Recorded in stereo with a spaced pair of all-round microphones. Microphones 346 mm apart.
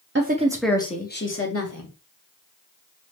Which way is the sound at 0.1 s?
35° right (ahead or behind).